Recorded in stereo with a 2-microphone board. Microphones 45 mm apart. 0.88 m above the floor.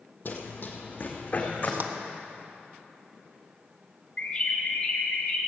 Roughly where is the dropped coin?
No dropped coin in this recording.